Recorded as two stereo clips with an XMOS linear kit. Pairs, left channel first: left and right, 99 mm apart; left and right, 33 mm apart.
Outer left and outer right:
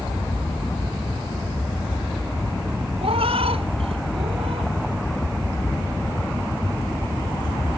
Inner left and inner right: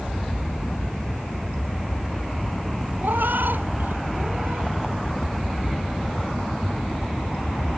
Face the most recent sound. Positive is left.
turn(degrees=-85)